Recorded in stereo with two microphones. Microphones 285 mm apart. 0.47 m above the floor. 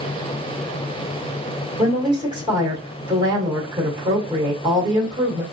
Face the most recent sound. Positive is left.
turn(degrees=-15)  # may be behind; listen again after turning